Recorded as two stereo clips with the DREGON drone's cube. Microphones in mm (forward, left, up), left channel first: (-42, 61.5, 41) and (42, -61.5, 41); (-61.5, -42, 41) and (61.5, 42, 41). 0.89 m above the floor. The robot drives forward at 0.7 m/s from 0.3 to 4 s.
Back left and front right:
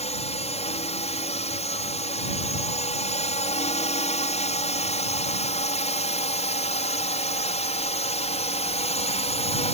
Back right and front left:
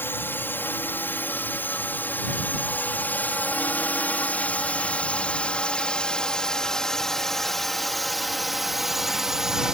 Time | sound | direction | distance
0.0 | a drone | 145° left | ?